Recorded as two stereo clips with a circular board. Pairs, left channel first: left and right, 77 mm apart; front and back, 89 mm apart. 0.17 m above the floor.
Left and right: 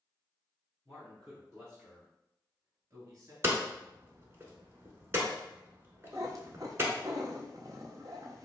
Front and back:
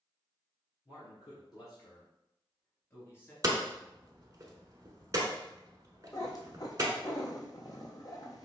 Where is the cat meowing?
45° right, 0.8 m.